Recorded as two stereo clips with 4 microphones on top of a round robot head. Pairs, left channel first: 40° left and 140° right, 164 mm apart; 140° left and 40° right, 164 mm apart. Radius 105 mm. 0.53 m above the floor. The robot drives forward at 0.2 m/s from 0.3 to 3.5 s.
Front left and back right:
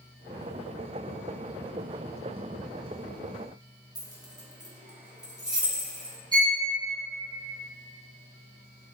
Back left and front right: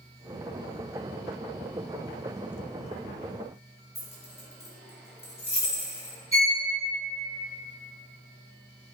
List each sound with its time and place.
4.0 s keys jangling: 165° left, 0.8 m
6.3 s a violin: 170° left, 1.6 m